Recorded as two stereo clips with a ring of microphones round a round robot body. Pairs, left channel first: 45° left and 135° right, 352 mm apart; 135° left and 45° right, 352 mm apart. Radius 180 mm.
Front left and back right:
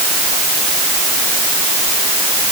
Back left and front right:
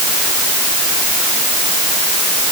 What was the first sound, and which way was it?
Only background noise.